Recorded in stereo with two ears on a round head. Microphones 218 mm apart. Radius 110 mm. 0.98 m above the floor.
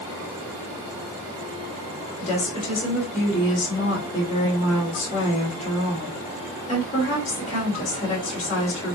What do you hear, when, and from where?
2.2 s a woman speaking: 30° left (ahead or behind), 3.5 m